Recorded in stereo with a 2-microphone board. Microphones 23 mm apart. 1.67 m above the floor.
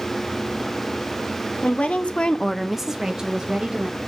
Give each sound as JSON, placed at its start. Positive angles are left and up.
{"t": 1.6, "sound": "a woman speaking", "side_deg": 65, "distance_m": 1.2}